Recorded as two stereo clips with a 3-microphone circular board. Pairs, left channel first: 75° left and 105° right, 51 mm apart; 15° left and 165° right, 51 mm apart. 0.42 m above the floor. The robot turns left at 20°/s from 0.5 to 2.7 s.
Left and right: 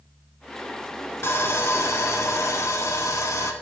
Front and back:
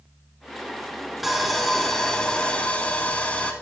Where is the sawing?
110° left, 0.8 m; by 3.5 s 80° left, 0.8 m.